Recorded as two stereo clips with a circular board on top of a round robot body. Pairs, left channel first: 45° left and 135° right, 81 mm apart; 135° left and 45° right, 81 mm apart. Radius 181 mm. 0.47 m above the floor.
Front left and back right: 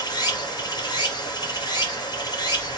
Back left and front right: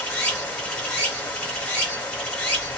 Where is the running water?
65° left, 1.8 m.